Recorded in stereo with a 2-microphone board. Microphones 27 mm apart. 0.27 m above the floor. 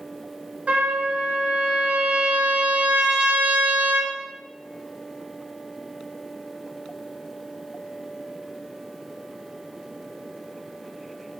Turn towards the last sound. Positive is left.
turn(degrees=-70)  # may be behind; listen again after turning